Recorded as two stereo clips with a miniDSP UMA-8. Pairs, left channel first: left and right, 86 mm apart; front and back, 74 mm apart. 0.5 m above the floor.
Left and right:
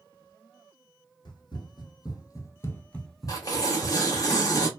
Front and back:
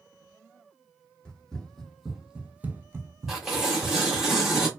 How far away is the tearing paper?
About 0.9 m.